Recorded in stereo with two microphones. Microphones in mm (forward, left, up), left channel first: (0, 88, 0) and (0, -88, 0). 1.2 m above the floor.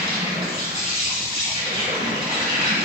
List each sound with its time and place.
0.0 s an insect: 35° right (ahead or behind), 1.8 m